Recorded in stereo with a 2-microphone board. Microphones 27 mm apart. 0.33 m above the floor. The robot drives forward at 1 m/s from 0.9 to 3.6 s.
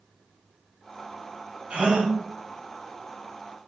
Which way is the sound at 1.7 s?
50° right (ahead or behind).